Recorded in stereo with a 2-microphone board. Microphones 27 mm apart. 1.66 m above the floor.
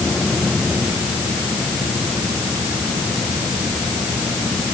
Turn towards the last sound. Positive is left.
No sound to turn to.